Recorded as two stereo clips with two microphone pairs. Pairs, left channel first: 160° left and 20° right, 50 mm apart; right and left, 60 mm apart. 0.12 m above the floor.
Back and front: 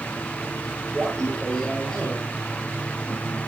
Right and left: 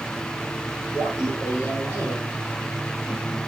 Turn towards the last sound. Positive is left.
turn(degrees=-120)